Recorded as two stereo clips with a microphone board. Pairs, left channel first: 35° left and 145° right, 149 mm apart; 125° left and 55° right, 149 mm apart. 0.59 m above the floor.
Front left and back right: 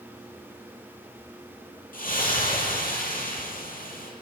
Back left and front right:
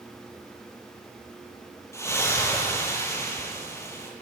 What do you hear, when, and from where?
1.9 s a splash: 55° left, 10 m